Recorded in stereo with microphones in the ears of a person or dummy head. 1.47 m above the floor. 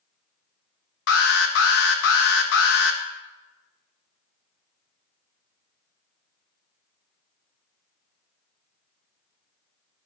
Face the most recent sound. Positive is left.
turn(degrees=70)  # may be behind; listen again after turning